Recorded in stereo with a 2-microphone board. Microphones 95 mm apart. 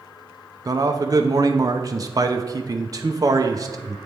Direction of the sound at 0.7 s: 40° right (ahead or behind).